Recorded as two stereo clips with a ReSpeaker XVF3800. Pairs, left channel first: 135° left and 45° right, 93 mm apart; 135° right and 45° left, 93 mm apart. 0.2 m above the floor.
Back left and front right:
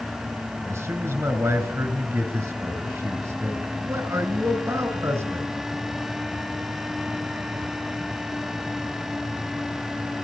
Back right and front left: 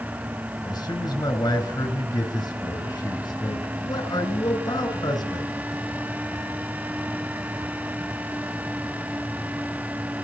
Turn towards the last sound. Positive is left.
turn(degrees=-105)